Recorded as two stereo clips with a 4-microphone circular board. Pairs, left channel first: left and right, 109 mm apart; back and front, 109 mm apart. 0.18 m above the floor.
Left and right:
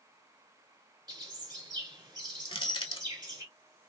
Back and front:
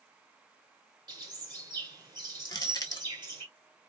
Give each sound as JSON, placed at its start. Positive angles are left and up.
{"t": 1.1, "sound": "a bird", "azimuth_deg": -45, "distance_m": 1.1}
{"t": 2.5, "sound": "crushing", "azimuth_deg": 125, "distance_m": 0.7}